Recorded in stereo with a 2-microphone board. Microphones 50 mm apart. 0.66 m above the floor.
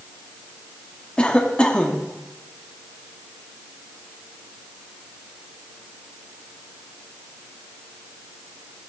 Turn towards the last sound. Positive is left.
turn(degrees=20)  # may be behind; listen again after turning